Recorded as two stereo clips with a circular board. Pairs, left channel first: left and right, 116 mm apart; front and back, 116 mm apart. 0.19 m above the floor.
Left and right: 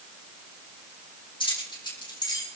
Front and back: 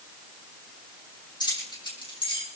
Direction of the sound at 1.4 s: 50° left.